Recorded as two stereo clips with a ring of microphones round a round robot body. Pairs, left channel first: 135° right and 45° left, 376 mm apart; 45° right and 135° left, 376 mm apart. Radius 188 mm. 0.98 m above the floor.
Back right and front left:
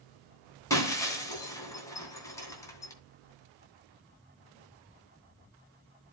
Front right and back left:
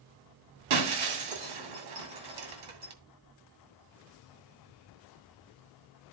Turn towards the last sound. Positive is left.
turn(degrees=145)